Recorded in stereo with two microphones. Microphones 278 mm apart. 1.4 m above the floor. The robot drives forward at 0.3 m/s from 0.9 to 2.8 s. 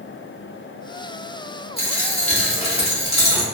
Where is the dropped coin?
20° left (ahead or behind), 0.8 m.